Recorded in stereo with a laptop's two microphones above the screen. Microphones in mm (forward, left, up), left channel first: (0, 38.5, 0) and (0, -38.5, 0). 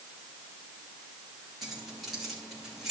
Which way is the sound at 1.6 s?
Centre (ahead or behind).